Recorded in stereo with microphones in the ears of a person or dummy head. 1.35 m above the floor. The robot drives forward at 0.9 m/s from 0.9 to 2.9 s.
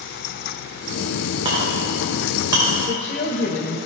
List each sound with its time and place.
1.4 s a clink: 25° right (ahead or behind), 2.5 m; by 2.7 s 20° right (ahead or behind), 3.5 m
2.9 s a woman speaking: 50° left (ahead or behind), 1.4 m